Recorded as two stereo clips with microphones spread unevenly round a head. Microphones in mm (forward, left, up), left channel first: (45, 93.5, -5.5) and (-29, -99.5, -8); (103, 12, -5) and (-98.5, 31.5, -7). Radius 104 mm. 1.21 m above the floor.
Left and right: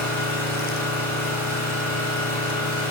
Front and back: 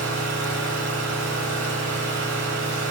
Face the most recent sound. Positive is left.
turn(degrees=150)